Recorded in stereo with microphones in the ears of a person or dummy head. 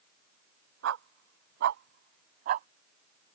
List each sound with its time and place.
0.8 s a dog barking: 80° right; by 2.7 s 55° right (ahead or behind)